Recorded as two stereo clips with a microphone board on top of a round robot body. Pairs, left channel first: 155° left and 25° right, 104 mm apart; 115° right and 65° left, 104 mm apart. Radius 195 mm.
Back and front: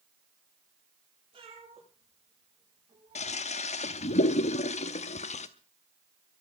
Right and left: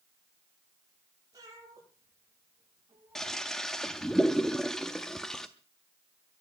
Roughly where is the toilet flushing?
Behind.